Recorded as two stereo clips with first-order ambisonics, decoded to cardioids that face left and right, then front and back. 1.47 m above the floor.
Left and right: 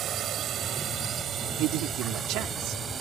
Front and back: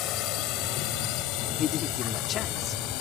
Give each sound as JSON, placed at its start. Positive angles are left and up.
{"t": 0.0, "sound": "a drone", "azimuth_deg": -35}
{"t": 1.6, "sound": "a man speaking", "azimuth_deg": -55}